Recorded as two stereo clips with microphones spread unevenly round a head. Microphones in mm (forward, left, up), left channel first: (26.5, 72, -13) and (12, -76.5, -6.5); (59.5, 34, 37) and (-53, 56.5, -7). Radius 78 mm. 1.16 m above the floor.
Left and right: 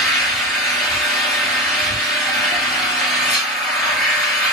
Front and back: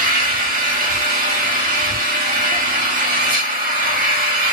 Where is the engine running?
175° left, 1.1 m.